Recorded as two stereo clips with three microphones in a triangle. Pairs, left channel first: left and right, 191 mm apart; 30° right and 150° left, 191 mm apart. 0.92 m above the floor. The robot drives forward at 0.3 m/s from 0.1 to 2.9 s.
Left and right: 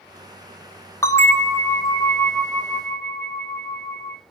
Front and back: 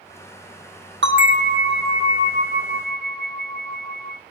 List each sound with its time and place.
1.0 s a bell: 165° left, 0.8 m; by 4.2 s 170° left, 1.4 m